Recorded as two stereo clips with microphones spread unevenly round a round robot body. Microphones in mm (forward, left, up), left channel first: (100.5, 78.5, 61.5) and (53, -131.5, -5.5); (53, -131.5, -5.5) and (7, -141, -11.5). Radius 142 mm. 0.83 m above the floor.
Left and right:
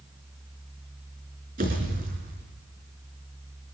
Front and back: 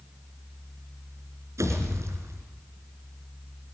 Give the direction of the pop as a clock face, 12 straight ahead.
6 o'clock.